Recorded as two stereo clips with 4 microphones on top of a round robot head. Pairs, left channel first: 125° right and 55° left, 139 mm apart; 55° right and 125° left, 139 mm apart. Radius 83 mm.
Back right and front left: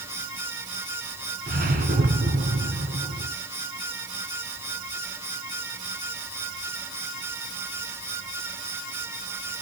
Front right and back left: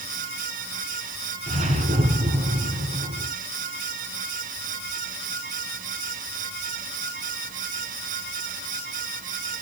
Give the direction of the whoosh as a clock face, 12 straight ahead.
9 o'clock.